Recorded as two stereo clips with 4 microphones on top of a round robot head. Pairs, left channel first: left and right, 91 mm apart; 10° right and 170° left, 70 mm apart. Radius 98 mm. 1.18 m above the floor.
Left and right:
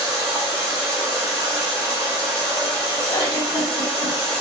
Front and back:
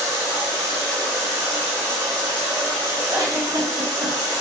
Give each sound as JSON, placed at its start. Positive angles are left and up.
{"t": 0.0, "sound": "running water", "azimuth_deg": -25, "distance_m": 0.8}
{"t": 3.1, "sound": "a giggle", "azimuth_deg": 130, "distance_m": 0.6}